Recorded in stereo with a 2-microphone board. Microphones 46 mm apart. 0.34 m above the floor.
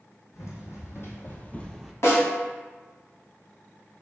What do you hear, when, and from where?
0.3 s running footsteps: 75° left (ahead or behind), 1.2 m; by 1.9 s centre (ahead or behind), 0.5 m
2.0 s a snare drum: 70° left (ahead or behind), 1.3 m